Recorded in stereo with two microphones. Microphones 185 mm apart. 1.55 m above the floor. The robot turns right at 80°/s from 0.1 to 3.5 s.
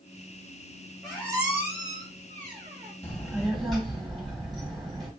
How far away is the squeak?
About 1.7 m.